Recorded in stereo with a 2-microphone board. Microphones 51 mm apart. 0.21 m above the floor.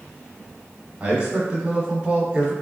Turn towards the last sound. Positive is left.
turn(degrees=-25)  # may be behind; listen again after turning